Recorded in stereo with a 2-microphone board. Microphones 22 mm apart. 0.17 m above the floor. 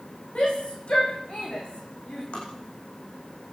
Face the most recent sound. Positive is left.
turn(degrees=60)  # may be behind; listen again after turning